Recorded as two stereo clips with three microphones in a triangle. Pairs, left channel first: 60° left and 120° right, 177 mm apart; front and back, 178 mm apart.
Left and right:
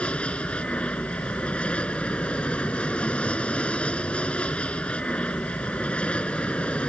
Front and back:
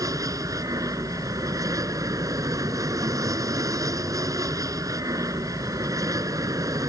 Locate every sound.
0.0 s an aircraft: 135° left